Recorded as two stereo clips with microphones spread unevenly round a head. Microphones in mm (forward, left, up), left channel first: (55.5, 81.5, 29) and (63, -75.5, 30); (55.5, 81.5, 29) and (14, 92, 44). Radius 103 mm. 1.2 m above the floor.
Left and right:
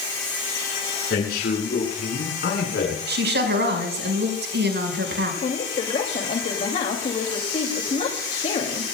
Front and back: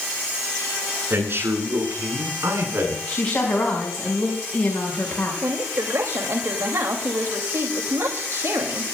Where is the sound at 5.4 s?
150° left, 2.5 m.